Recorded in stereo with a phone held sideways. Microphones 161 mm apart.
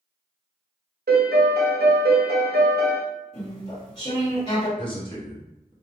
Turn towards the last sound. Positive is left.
turn(degrees=30)  # may be behind; listen again after turning